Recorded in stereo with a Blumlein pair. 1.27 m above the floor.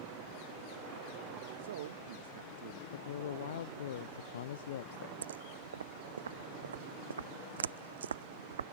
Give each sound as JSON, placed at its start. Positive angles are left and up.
{"t": 1.6, "sound": "a man speaking", "azimuth_deg": -60}
{"t": 2.9, "sound": "a man speaking", "azimuth_deg": 60}
{"t": 5.2, "sound": "footsteps", "azimuth_deg": -70}